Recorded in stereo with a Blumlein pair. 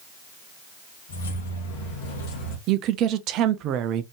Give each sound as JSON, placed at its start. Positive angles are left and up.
{"t": 1.1, "sound": "keys jangling", "azimuth_deg": 65, "distance_m": 1.8}
{"t": 2.7, "sound": "a woman speaking", "azimuth_deg": -35, "distance_m": 0.7}